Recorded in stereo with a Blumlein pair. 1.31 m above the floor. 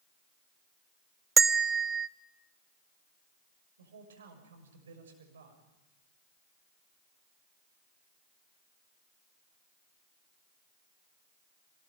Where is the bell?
15° right, 0.7 m.